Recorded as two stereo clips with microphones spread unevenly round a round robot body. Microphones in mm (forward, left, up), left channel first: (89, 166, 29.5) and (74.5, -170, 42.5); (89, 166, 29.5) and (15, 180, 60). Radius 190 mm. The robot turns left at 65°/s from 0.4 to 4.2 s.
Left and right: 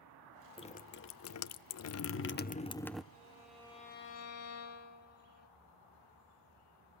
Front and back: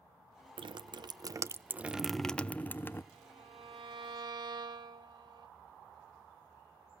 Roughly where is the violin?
Behind.